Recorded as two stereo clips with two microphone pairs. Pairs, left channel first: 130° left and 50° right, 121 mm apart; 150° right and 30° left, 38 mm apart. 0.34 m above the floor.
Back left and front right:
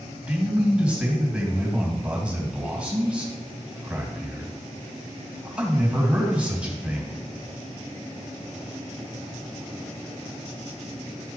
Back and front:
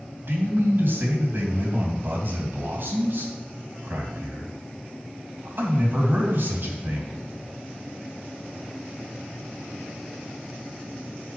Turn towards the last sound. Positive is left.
turn(degrees=30)